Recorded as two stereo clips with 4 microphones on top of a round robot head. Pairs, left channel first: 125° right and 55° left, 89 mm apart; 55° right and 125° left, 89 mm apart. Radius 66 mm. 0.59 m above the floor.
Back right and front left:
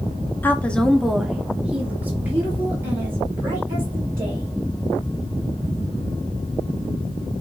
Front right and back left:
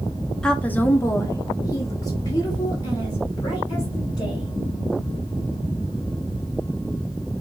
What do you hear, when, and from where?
0.4 s a woman speaking: 120° right, 0.8 m; by 4.5 s 5° right, 3.5 m